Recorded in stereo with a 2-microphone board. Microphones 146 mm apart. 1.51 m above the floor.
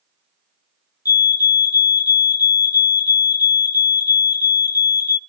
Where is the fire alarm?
25° left (ahead or behind), 0.8 m.